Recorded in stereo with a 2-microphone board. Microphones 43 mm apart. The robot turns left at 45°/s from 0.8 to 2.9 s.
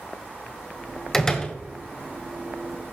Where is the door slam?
10° left (ahead or behind), 1.4 m; by 1.6 s 25° left (ahead or behind), 1.4 m.